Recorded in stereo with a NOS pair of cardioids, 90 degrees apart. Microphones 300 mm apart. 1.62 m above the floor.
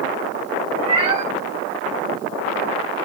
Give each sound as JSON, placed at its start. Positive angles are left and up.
{"t": 0.8, "sound": "a cat meowing", "azimuth_deg": -20, "distance_m": 3.0}